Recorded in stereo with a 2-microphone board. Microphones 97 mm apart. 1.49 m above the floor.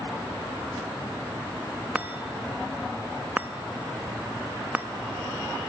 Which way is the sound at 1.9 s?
15° right (ahead or behind).